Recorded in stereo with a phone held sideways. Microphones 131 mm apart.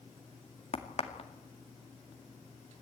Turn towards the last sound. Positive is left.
turn(degrees=55)  # may be behind; listen again after turning